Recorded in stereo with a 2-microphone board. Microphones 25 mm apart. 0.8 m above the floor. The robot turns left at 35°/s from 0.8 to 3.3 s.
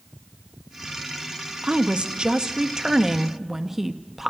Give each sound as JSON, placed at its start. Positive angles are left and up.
{"t": 1.6, "sound": "a woman speaking", "azimuth_deg": -105, "distance_m": 0.6}